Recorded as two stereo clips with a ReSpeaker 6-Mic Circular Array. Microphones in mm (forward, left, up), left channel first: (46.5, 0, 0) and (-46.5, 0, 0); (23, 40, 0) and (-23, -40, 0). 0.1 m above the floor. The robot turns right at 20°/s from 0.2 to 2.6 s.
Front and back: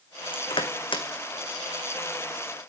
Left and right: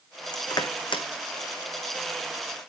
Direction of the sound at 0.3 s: 15° left.